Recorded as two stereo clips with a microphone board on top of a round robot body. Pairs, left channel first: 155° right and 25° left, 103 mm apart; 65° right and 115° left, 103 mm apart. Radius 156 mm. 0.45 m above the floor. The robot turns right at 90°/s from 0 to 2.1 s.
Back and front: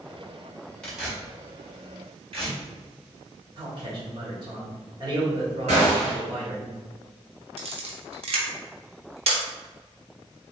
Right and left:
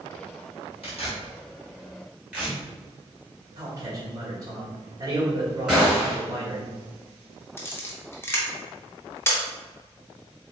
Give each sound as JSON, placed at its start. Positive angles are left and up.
{"t": 0.8, "sound": "tearing paper", "azimuth_deg": -80, "distance_m": 2.0}
{"t": 3.6, "sound": "a man speaking", "azimuth_deg": 60, "distance_m": 1.8}
{"t": 5.7, "sound": "a gunshot", "azimuth_deg": 30, "distance_m": 1.8}
{"t": 7.6, "sound": "a camera shutter", "azimuth_deg": 0, "distance_m": 0.8}